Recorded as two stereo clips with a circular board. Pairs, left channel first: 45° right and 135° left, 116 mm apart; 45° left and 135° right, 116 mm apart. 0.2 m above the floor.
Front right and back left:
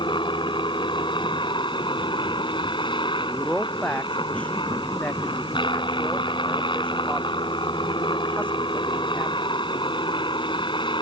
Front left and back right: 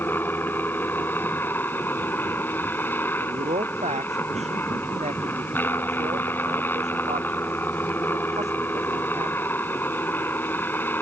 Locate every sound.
0.0 s a helicopter: 25° right
3.2 s a man speaking: 125° right